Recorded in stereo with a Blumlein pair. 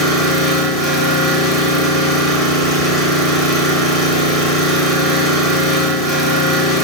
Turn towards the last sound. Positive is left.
turn(degrees=0)